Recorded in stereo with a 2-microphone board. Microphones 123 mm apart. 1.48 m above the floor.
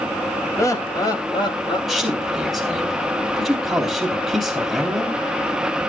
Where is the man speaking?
5° left (ahead or behind), 3.5 m.